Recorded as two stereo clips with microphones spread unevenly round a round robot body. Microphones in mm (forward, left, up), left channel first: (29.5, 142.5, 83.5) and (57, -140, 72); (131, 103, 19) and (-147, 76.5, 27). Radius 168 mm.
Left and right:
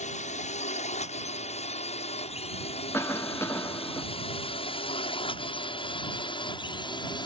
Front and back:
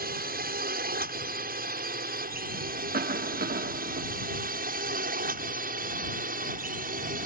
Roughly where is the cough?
Behind.